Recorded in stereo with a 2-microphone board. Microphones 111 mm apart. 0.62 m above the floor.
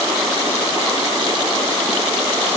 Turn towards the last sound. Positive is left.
No sound to turn to.